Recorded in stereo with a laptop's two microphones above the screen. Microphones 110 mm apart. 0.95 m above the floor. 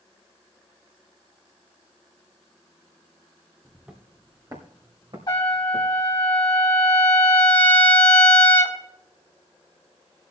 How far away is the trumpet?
About 2 m.